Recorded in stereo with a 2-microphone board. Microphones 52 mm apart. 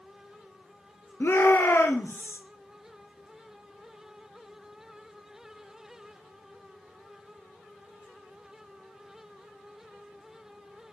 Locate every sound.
1.2 s a shout: 50° left (ahead or behind), 2.5 m; by 2.4 s 55° left (ahead or behind), 2.5 m